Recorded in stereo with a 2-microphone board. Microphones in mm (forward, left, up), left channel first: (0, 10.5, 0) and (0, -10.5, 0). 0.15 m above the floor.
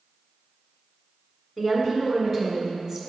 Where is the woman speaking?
10° left (ahead or behind), 1.8 m; by 3.0 s 10° right (ahead or behind), 2 m.